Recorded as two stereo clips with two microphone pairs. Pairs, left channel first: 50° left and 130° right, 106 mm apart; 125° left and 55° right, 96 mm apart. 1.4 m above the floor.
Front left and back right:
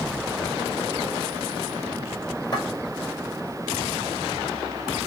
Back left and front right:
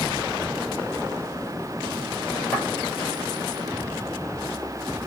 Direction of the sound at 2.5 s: 55° left.